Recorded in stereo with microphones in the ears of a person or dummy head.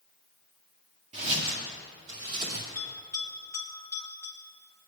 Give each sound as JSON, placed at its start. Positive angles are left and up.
{"t": 1.1, "sound": "footsteps", "side_deg": -25, "distance_m": 1.9}
{"t": 2.8, "sound": "a bell", "side_deg": 10, "distance_m": 2.0}